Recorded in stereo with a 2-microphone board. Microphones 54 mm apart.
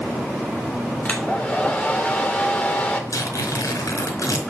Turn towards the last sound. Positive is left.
turn(degrees=85)